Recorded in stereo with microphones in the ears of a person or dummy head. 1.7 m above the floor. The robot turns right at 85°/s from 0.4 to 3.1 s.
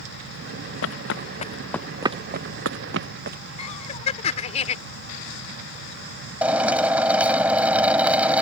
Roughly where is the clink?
No clink in this recording.